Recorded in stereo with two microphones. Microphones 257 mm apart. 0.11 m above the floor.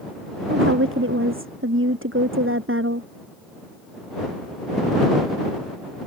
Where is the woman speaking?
50° right (ahead or behind).